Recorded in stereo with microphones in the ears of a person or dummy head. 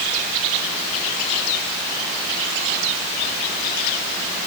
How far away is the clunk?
I don't hear a clunk.